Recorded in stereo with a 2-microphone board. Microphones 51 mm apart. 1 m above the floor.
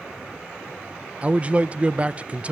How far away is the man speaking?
About 0.5 m.